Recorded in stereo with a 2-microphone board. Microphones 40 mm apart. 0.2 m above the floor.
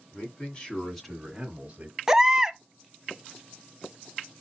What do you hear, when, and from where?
0.1 s a man speaking: 40° left (ahead or behind), 2 m; by 2.0 s 40° right (ahead or behind), 1.7 m
2.1 s a baby crying: 15° right (ahead or behind), 0.5 m